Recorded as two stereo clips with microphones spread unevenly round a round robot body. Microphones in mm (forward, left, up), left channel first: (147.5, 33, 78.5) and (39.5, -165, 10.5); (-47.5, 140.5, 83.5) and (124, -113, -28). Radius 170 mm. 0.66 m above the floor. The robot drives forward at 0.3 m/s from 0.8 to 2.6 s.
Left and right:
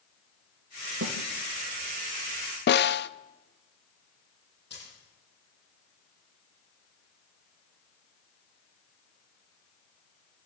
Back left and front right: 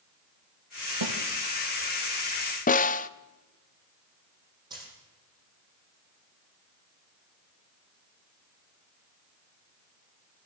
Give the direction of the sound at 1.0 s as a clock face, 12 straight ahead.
3 o'clock.